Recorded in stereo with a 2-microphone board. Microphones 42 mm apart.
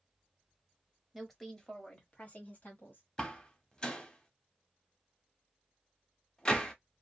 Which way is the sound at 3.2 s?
20° left (ahead or behind).